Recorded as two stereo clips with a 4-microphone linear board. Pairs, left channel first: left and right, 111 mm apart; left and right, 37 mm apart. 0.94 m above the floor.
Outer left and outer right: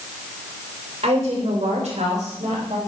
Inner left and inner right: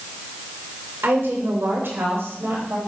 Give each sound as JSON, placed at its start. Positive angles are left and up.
{"t": 1.0, "sound": "a woman speaking", "side_deg": -70, "distance_m": 3.0}